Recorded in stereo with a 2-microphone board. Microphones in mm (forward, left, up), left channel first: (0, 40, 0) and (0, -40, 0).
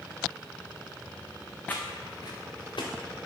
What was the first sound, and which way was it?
Footsteps, 15° left (ahead or behind).